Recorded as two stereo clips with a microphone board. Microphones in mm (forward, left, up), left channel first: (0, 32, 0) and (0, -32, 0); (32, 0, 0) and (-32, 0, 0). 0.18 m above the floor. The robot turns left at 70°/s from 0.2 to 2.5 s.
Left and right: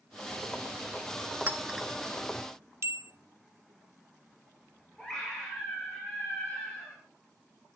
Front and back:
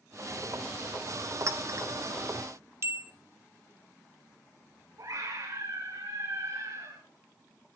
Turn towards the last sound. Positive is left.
turn(degrees=170)